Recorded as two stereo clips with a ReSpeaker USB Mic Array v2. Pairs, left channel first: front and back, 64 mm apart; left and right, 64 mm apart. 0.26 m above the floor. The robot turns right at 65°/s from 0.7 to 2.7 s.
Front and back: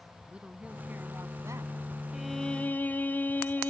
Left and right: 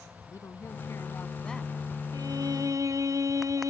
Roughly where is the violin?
Right.